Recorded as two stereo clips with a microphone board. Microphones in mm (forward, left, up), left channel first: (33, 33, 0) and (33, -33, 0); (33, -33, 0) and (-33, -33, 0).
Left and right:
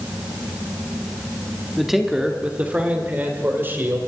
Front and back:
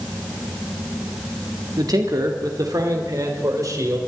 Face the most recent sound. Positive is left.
turn(degrees=-145)